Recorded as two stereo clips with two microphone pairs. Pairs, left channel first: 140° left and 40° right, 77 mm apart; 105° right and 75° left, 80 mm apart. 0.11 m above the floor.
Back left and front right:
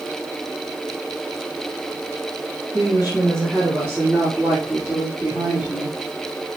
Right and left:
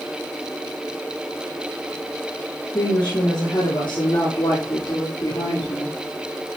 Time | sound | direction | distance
2.7 | a woman speaking | 110° right | 6.5 m